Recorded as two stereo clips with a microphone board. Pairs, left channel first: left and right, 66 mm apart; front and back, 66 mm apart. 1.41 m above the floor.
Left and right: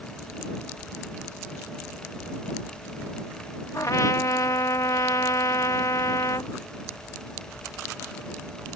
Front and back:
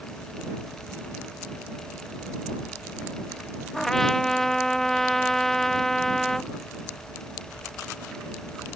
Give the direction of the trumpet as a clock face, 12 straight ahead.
9 o'clock.